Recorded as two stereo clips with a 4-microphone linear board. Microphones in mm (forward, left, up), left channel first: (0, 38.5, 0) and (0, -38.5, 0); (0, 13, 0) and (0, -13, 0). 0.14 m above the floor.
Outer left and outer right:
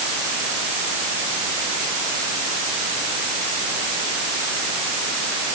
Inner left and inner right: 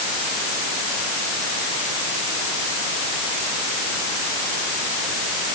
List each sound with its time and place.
Only background noise.